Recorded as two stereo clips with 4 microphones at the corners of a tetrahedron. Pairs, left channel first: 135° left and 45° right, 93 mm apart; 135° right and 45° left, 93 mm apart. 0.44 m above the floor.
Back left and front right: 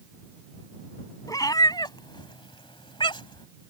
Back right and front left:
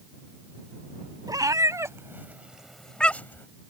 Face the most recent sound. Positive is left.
turn(degrees=165)